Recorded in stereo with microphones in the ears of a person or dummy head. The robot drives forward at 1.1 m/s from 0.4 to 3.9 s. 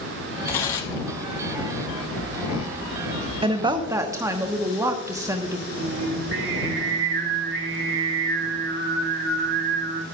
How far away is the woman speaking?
About 0.7 m.